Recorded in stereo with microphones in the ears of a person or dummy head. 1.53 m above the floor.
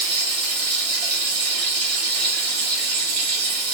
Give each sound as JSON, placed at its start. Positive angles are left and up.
{"t": 0.0, "sound": "running water", "side_deg": -40, "distance_m": 1.1}